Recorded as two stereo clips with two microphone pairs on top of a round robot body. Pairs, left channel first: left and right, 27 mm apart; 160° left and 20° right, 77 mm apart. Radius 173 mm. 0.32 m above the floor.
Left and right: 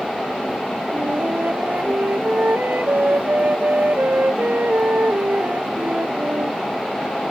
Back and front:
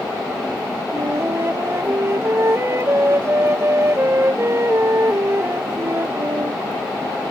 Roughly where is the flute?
Right.